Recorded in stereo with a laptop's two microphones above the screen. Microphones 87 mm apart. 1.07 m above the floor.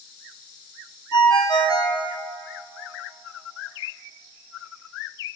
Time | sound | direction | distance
1.1 | a ringtone | 55° left (ahead or behind) | 0.7 m